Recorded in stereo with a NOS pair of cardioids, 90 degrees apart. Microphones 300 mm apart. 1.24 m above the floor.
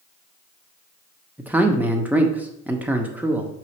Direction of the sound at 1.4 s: 5° right.